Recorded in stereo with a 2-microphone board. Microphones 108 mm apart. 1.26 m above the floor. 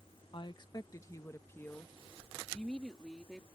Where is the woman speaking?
50° left (ahead or behind); by 3.5 s centre (ahead or behind).